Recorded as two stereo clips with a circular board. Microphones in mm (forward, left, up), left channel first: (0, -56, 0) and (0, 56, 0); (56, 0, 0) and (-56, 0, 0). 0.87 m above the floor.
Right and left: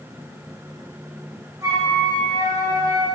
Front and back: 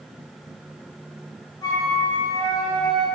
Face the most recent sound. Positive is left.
turn(degrees=45)